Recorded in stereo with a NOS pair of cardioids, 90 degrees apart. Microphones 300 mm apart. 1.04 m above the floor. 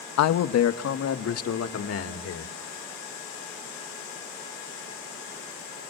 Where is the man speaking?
65° left, 0.9 m; by 2.5 s 50° left, 3 m.